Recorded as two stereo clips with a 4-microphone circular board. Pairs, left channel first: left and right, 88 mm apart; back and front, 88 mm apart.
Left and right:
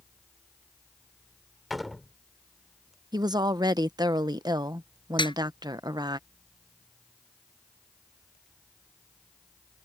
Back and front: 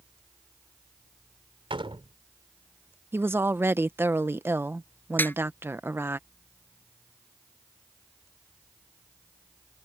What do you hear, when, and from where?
1.7 s a door slam: straight ahead
3.1 s a woman speaking: 60° right
5.2 s a snare drum: 115° left